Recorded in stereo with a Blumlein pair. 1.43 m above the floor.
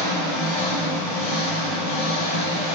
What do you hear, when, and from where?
0.0 s an engine running: 50° left, 2 m